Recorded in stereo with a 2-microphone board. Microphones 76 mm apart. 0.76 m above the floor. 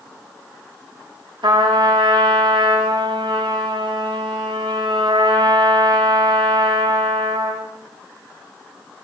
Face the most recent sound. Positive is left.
turn(degrees=-80)